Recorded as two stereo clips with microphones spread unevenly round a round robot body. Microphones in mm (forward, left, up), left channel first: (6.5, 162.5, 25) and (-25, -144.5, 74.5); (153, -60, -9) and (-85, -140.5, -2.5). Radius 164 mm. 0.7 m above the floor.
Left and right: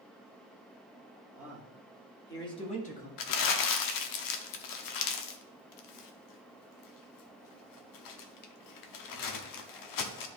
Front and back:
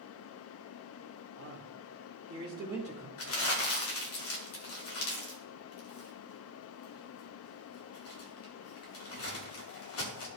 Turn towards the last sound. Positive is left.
turn(degrees=70)